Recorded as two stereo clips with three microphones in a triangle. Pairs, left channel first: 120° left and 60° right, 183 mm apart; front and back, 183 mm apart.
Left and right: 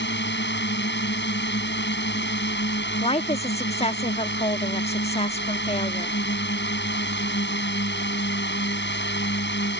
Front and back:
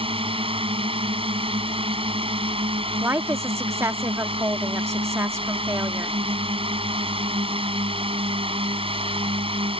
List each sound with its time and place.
0.0 s a drone: 120° left
3.0 s a woman speaking: 120° left